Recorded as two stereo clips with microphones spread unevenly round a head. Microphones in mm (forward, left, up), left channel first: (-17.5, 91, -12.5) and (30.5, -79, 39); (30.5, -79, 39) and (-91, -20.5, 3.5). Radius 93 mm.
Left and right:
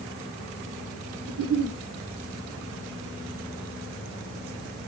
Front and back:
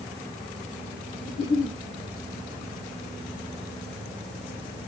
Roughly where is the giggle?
Ahead right.